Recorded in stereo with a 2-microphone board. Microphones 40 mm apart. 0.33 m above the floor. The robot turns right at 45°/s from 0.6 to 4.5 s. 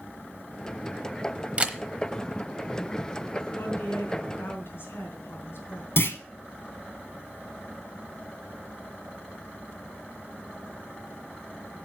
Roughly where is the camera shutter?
Right.